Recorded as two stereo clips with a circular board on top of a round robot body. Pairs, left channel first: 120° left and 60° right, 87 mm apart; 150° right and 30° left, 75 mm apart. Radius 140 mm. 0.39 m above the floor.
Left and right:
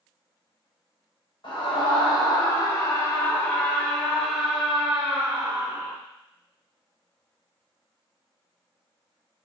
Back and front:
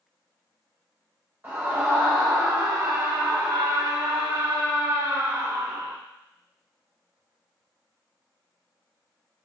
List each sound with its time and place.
1.4 s a scream: 95° left, 2.5 m; by 6.0 s straight ahead, 2.5 m